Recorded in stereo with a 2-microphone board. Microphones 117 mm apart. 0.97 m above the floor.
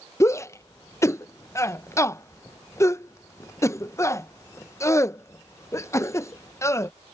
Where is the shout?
25° left (ahead or behind).